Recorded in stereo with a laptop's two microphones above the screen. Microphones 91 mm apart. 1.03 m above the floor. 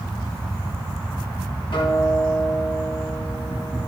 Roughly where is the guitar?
Left.